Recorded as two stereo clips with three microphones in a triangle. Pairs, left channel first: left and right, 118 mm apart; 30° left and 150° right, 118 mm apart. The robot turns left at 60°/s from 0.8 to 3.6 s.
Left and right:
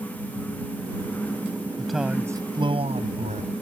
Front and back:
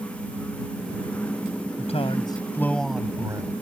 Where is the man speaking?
10° left; by 3.5 s 95° right.